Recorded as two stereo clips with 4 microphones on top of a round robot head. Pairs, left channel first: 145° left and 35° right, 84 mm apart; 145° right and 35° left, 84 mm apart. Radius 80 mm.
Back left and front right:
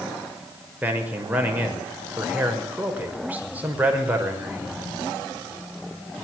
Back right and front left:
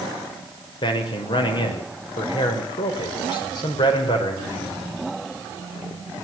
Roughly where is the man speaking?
Right.